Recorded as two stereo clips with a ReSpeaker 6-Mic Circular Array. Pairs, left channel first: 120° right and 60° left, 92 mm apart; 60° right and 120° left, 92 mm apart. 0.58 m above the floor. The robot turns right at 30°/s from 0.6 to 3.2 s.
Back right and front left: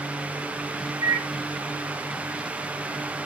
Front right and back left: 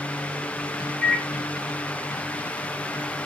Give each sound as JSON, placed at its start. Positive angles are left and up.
{"t": 1.0, "sound": "a microwave", "azimuth_deg": 5, "distance_m": 1.3}